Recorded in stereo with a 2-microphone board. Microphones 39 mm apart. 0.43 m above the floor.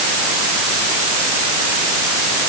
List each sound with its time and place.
Only background noise.